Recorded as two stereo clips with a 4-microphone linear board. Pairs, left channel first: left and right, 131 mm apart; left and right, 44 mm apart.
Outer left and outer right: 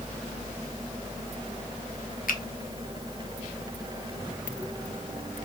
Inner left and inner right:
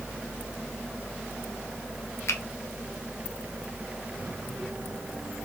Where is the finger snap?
75° left (ahead or behind), 0.5 m.